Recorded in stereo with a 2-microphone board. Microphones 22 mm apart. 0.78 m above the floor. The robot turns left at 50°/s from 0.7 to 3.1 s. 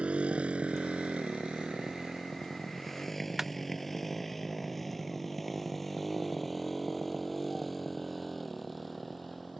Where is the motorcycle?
85° right; by 9.6 s centre (ahead or behind).